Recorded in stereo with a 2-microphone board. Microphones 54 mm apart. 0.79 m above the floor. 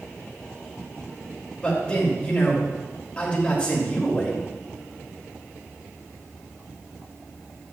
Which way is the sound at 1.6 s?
25° left (ahead or behind).